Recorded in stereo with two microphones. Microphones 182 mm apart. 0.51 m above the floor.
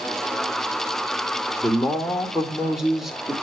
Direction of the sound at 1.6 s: Centre (ahead or behind).